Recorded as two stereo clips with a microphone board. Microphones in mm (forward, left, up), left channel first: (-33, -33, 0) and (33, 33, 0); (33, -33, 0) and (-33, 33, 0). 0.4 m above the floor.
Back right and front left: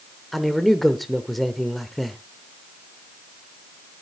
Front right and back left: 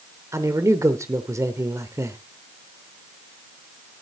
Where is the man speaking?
135° left, 1.0 m.